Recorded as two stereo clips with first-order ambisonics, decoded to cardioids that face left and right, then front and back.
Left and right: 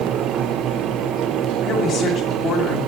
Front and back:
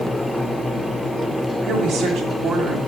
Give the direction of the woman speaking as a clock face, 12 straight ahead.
7 o'clock.